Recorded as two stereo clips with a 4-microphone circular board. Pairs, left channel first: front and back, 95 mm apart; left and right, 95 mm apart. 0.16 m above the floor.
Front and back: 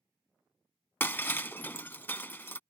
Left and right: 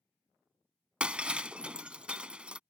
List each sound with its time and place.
1.0 s breaking glass: 30° right